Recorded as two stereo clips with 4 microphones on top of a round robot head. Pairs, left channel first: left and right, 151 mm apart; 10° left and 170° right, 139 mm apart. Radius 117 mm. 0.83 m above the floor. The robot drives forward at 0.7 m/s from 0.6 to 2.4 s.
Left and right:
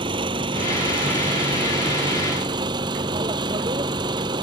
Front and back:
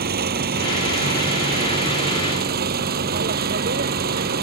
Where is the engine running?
155° right; by 4.4 s 160° right.